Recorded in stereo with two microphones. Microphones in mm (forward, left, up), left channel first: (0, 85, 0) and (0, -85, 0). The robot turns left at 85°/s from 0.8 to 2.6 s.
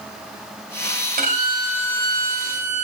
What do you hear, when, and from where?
1.2 s a violin: 120° right, 1.4 m; by 2.8 s 115° left, 1.4 m